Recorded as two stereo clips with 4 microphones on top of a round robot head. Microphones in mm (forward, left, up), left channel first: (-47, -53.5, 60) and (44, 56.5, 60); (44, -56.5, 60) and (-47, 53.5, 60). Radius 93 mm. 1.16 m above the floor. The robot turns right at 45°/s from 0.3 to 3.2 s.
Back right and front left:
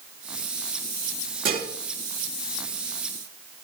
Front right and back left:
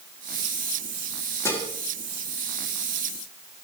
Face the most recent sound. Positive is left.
turn(degrees=100)